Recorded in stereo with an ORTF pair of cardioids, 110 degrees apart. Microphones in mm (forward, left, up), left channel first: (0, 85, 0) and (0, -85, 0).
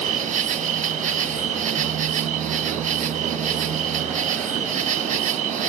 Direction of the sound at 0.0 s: 45° right.